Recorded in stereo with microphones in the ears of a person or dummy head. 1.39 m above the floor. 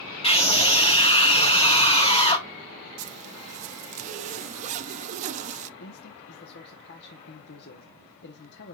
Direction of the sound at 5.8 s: 55° left (ahead or behind).